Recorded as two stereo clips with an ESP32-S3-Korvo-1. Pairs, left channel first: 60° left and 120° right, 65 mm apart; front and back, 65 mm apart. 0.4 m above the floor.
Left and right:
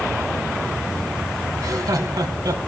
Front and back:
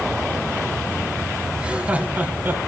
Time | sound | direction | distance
1.6 | laughter | 105° right | 2.5 m